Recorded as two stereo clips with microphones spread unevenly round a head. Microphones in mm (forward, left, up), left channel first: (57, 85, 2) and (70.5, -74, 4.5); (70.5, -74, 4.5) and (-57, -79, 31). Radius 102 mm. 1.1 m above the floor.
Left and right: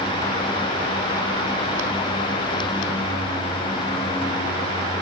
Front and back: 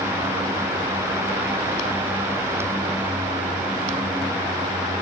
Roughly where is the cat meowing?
I don't hear a cat meowing.